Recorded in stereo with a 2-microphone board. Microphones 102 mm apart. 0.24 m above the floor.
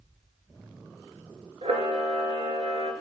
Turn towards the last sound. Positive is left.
turn(degrees=-75)  # may be behind; listen again after turning